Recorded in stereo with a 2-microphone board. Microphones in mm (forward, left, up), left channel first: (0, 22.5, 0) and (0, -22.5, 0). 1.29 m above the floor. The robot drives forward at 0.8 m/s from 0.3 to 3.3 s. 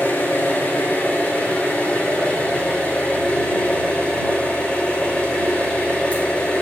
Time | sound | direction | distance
0.0 | an engine running | 45° left (ahead or behind) | 3.5 m